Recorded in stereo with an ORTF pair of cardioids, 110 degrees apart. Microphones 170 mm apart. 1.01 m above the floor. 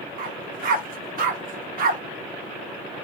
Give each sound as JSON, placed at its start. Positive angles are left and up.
{"t": 0.2, "sound": "a dog barking", "azimuth_deg": -60, "distance_m": 1.1}